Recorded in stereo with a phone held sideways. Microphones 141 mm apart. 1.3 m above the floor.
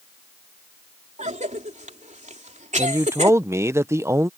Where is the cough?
60° right (ahead or behind).